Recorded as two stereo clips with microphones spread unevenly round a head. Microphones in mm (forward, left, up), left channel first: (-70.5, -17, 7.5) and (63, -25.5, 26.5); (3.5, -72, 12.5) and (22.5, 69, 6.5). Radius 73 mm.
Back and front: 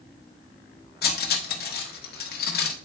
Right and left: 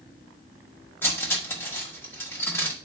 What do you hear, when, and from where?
1.0 s cutlery clinking: 170° right, 1.1 m